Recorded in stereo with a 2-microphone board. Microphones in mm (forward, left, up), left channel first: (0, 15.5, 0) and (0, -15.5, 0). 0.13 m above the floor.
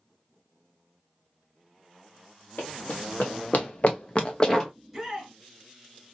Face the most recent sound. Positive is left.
turn(degrees=0)  # may be behind; listen again after turning